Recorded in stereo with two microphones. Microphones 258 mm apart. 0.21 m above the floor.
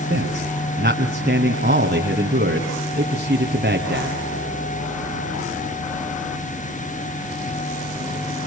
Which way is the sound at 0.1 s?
40° right (ahead or behind).